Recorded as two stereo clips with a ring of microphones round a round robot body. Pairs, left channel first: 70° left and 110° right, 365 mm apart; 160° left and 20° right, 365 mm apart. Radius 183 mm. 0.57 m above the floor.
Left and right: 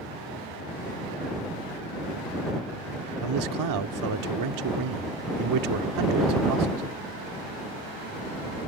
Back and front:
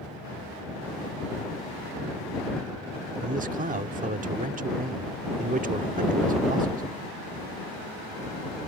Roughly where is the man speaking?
Right.